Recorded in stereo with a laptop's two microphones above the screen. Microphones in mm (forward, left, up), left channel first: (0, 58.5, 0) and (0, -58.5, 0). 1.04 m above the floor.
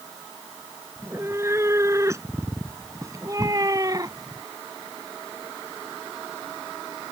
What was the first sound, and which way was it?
A cat meowing, 25° right (ahead or behind).